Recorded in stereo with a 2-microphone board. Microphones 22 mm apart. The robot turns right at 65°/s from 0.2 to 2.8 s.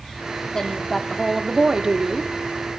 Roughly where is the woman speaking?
Behind left.